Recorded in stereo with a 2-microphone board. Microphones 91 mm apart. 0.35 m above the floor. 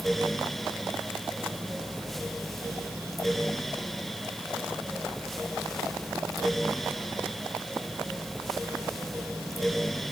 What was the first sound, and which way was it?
Only background noise.